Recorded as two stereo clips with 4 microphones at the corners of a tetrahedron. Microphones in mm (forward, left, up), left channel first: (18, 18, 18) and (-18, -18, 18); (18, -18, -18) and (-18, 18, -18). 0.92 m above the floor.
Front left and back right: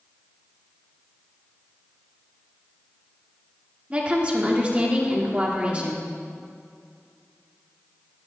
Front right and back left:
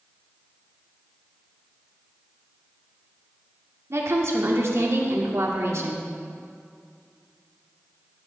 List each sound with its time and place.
3.9 s a woman speaking: 160° left, 1.9 m